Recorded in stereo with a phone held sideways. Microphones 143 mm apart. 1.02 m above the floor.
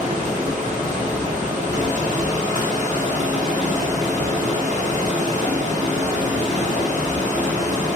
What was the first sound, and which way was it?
Running water, 60° right (ahead or behind).